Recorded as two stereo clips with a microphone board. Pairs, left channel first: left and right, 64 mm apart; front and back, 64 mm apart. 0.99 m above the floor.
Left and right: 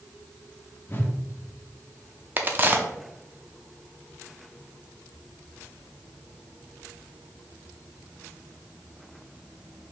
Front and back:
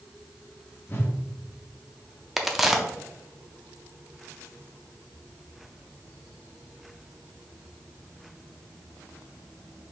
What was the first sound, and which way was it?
A whoosh, 40° left.